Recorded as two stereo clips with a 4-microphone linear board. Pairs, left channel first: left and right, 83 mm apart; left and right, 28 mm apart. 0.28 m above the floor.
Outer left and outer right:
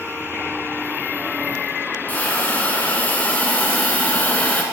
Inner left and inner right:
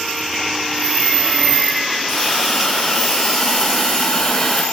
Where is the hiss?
20° left (ahead or behind), 1.3 m.